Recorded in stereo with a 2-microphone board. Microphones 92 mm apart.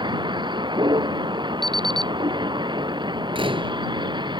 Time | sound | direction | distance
0.0 | a vehicle | 60° right (ahead or behind) | ?
1.6 | an alarm clock | 55° right (ahead or behind) | ?
3.4 | a door slam | 80° right | ?